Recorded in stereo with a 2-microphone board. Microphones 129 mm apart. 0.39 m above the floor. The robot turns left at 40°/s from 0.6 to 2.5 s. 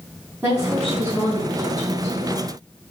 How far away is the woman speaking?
About 4 m.